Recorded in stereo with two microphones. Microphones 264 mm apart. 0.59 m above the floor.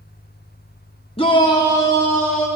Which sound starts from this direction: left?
A shout, at 1.2 s.